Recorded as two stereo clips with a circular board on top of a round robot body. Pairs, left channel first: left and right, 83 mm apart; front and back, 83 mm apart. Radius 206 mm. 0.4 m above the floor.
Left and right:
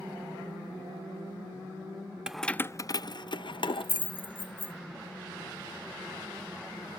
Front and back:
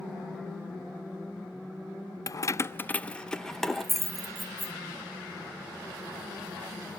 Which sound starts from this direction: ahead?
Keys jangling, at 2.3 s.